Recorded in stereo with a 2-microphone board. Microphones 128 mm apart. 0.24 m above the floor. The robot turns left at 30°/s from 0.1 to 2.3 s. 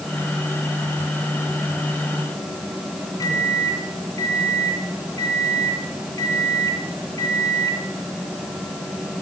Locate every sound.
3.2 s a microwave: 30° left (ahead or behind), 2.5 m